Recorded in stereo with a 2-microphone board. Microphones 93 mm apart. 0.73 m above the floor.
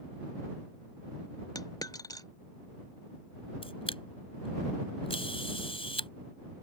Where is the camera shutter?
85° left.